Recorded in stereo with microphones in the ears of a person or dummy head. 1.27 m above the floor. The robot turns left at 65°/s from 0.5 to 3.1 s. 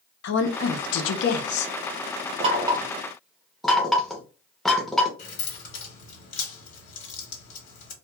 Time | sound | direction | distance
0.2 | a woman speaking | 115° left | 0.5 m
2.4 | knocking | 40° right (ahead or behind) | 0.5 m
5.2 | keys jangling | 50° left (ahead or behind) | 1.2 m